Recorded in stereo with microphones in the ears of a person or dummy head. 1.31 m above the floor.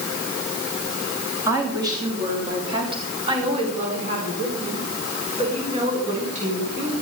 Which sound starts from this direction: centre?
A woman speaking, at 1.5 s.